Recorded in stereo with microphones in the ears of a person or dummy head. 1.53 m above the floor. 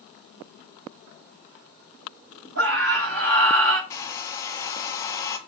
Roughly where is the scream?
Right.